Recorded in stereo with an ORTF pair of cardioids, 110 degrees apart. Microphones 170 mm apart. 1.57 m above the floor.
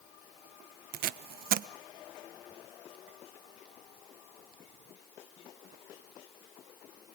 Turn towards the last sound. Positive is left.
turn(degrees=-65)